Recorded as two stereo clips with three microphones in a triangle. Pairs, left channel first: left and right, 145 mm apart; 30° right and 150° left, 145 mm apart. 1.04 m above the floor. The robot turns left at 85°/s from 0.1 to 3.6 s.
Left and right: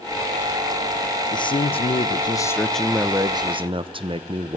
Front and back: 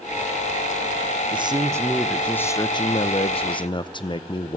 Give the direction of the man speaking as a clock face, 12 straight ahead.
8 o'clock.